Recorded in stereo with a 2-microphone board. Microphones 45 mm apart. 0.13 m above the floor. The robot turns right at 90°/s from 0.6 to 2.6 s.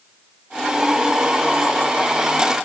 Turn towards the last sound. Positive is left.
No sound to turn to.